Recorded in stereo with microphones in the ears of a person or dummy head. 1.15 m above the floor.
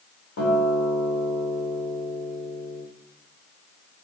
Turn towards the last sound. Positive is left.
turn(degrees=65)  # may be behind; listen again after turning